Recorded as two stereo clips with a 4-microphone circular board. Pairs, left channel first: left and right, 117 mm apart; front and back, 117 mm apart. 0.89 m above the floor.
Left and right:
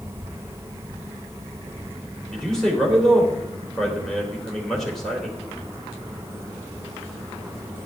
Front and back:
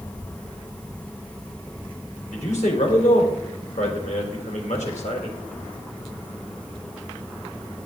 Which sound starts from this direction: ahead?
A man speaking, at 2.3 s.